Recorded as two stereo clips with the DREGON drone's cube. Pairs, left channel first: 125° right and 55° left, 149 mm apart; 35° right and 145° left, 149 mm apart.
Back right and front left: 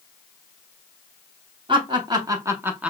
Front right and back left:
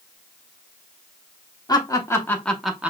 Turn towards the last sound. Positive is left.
turn(degrees=110)